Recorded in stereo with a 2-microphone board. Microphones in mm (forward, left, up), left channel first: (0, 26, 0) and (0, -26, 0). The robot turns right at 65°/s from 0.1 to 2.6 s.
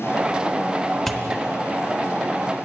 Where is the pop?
5° left (ahead or behind), 0.7 m; by 1.3 s 20° left (ahead or behind), 0.7 m.